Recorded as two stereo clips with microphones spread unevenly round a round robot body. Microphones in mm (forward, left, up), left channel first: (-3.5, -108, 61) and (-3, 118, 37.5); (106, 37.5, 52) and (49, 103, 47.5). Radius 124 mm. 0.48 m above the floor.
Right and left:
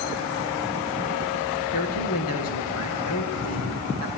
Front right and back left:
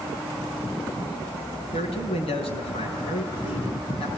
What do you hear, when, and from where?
1.7 s a man speaking: 60° right, 6 m